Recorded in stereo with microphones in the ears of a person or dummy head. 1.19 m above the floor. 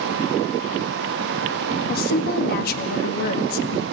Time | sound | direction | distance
1.9 | a woman speaking | 60° left (ahead or behind) | 1.9 m